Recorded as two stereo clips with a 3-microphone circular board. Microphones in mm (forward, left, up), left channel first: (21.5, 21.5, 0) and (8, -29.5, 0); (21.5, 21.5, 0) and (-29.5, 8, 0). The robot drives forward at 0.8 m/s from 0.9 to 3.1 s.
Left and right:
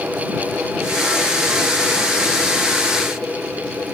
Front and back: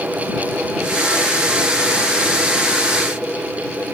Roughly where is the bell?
No bell in this recording.